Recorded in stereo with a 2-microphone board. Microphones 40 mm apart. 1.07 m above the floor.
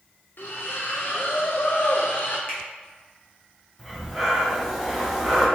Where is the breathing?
Centre (ahead or behind), 1.4 m.